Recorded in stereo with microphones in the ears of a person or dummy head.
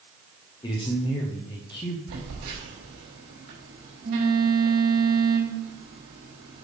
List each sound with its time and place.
0.6 s a man speaking: 25° left (ahead or behind), 0.8 m
2.1 s a phone buzzing: 70° right (ahead or behind), 4 m